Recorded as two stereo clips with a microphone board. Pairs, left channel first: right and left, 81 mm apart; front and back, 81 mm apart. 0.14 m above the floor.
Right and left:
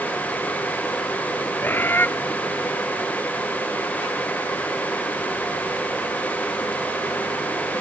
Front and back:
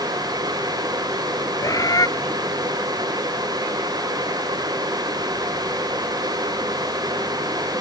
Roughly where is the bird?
Ahead right.